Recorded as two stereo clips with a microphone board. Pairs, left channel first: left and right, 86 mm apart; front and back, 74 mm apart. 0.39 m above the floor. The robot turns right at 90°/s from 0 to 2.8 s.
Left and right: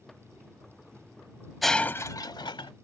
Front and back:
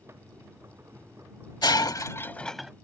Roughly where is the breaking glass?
Ahead.